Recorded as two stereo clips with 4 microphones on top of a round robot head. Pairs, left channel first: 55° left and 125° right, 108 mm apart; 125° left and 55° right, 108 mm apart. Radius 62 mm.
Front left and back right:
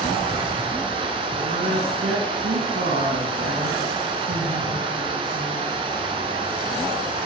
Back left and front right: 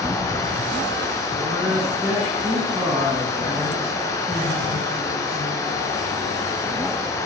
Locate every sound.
0.0 s running water: 170° right, 5.5 m
1.4 s a woman speaking: 125° right, 6 m